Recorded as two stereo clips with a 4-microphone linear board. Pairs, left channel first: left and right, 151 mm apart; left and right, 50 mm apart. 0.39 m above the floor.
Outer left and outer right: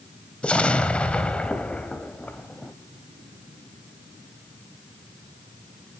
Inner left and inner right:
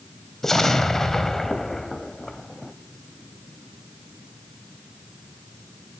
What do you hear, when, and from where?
0.4 s an explosion: 5° left (ahead or behind), 0.7 m